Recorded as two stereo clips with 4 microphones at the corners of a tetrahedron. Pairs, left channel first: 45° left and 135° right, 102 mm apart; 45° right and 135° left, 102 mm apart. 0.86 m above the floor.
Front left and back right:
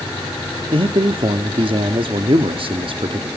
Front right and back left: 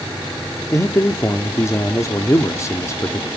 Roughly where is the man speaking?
Right.